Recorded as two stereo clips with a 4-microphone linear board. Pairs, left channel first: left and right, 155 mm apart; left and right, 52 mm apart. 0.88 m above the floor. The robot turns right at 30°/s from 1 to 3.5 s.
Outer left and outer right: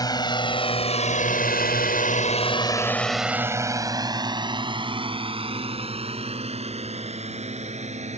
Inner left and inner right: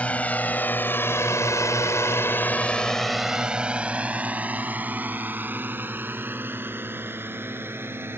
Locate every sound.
0.0 s a drone: 25° left (ahead or behind); by 8.2 s 45° right (ahead or behind)